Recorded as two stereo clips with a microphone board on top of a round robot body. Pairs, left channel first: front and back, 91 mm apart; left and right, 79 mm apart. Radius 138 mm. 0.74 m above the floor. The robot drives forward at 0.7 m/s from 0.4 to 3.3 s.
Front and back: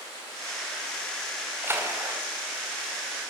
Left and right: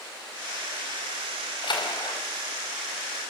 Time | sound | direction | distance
1.6 | a splash | 115° left | 4.5 m